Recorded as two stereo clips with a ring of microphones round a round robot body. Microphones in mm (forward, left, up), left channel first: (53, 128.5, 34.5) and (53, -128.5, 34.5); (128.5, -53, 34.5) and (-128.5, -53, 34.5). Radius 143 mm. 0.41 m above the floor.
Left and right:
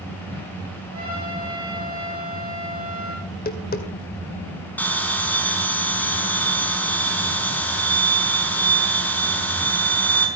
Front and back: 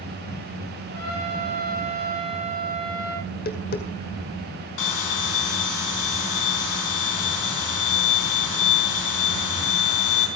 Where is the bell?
5° left, 4 m.